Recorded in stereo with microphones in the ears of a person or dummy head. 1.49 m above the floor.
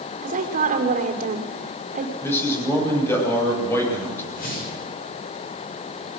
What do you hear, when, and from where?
0.2 s a woman speaking: 50° right (ahead or behind), 4 m
2.2 s a man speaking: 10° left (ahead or behind), 8 m
4.3 s a whoosh: 50° left (ahead or behind), 7 m